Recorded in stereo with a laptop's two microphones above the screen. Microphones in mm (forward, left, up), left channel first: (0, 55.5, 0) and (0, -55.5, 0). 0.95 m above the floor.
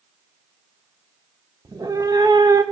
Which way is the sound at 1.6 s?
35° right (ahead or behind).